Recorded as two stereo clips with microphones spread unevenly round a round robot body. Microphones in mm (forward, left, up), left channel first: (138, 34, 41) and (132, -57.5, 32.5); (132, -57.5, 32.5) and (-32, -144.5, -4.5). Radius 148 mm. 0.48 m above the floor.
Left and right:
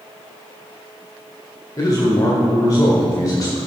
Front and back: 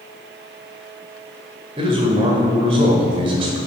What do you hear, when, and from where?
1.8 s a man speaking: 145° left, 1.3 m